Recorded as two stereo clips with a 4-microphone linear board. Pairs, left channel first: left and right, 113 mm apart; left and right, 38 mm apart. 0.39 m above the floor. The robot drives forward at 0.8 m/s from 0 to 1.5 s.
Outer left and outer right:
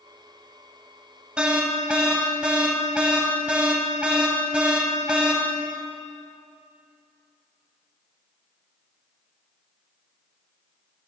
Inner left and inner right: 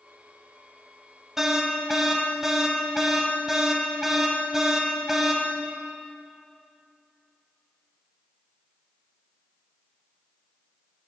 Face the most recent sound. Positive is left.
turn(degrees=-10)  # may be behind; listen again after turning